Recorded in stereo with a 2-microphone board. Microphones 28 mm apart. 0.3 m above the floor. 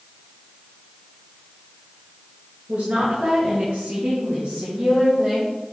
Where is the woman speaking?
70° right (ahead or behind), 4 m; by 5.5 s 20° right (ahead or behind), 4 m.